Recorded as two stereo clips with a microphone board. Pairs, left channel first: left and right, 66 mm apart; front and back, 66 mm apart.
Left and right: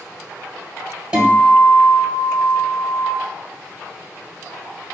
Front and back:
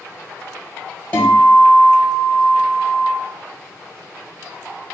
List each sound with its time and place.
1.1 s a guitar: 35° right, 1.6 m